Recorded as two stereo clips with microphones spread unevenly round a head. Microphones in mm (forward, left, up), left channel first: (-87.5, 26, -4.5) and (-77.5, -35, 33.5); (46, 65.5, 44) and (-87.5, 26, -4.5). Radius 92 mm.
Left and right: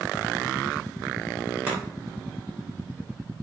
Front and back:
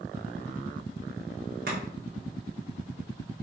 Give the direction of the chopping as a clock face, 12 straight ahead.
4 o'clock.